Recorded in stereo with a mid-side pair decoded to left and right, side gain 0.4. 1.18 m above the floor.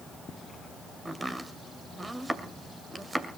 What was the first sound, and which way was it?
Chopping, 25° right.